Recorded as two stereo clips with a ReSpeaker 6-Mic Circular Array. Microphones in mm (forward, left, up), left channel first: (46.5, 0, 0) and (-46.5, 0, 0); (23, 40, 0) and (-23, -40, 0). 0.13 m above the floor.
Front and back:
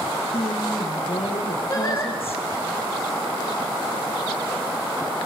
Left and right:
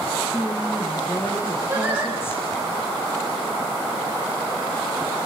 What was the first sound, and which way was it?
A woman speaking, 10° right.